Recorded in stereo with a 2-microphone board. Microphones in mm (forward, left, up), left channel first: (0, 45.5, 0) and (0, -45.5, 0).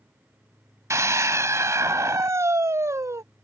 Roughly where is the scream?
Right.